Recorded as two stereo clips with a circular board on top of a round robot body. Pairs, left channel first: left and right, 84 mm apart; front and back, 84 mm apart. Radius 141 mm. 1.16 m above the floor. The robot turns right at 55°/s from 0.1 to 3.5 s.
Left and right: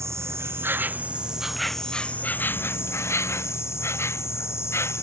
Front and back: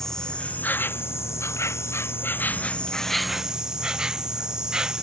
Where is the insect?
80° right; by 5.0 s 105° left.